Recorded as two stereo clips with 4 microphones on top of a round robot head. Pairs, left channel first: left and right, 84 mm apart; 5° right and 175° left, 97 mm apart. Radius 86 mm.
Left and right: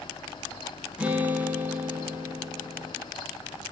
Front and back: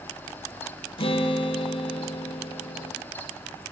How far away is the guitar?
About 1.3 m.